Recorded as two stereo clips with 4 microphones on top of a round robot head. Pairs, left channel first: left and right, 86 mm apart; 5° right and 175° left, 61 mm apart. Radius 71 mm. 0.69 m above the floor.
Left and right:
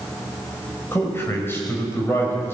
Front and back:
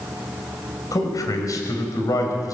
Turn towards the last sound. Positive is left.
turn(degrees=25)